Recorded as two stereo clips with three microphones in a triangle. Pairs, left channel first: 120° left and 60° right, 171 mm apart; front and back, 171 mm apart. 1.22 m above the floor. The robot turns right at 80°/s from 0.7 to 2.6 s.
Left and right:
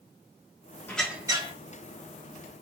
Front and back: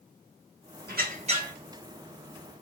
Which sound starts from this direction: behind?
A squeak, at 0.9 s.